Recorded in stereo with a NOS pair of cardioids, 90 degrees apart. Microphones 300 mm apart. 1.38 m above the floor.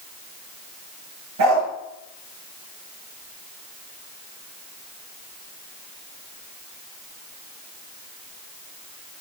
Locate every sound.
1.4 s a dog barking: 65° right, 9.5 m